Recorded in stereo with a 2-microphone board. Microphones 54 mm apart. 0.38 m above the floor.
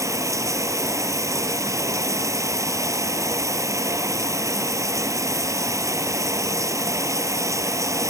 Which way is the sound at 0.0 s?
80° right.